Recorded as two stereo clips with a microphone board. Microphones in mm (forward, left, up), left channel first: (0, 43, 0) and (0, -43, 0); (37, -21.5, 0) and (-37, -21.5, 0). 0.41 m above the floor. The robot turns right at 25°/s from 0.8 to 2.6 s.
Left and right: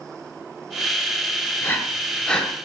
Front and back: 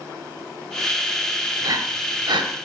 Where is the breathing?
155° left, 0.5 m; by 2.5 s 175° left, 0.5 m.